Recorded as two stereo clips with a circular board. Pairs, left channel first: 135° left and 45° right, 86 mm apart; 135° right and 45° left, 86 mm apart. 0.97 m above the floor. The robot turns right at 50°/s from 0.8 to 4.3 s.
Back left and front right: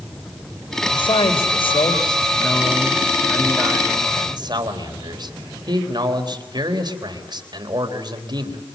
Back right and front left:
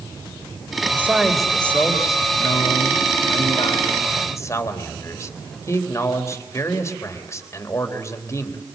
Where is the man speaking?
110° left, 3.5 m; by 8.6 s 80° right, 3.5 m.